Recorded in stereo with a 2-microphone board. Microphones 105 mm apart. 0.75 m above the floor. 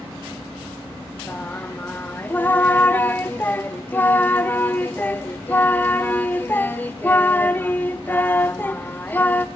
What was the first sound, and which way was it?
Singing, 20° left (ahead or behind).